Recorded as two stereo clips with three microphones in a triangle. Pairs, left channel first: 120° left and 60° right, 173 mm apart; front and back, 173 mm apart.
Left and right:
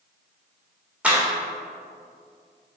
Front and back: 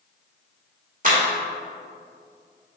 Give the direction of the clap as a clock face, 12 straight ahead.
5 o'clock.